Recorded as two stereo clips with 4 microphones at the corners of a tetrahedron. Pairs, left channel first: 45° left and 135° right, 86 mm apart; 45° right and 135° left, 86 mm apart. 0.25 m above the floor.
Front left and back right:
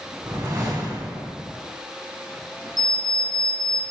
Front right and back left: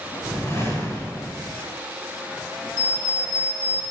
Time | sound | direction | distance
0.2 | a whoosh | 100° right | 2.5 m
2.8 | an alarm clock | 20° left | 4 m